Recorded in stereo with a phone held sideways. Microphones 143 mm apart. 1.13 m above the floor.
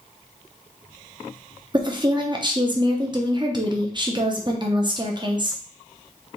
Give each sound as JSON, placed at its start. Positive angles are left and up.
{"t": 1.7, "sound": "a woman speaking", "side_deg": -35, "distance_m": 0.8}